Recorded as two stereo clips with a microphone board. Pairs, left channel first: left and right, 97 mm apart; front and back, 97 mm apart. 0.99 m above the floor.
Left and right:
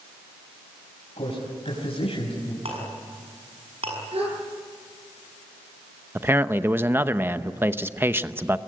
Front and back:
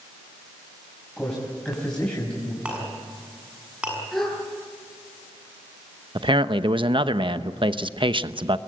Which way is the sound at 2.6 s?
100° right.